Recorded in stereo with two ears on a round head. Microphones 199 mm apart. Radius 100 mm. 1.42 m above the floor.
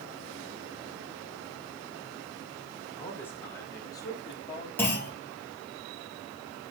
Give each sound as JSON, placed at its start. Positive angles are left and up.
{"t": 3.0, "sound": "a man speaking", "side_deg": 10, "distance_m": 6.0}
{"t": 4.8, "sound": "a clunk", "side_deg": 10, "distance_m": 5.0}